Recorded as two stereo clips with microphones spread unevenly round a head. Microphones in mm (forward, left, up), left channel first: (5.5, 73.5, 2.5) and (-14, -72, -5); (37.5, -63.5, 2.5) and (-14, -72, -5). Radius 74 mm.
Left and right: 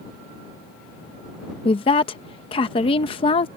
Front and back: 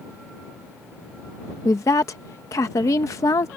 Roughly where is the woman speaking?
Ahead left.